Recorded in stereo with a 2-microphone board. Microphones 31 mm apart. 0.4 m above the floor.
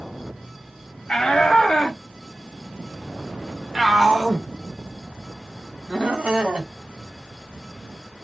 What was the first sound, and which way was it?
A shout, 20° left (ahead or behind).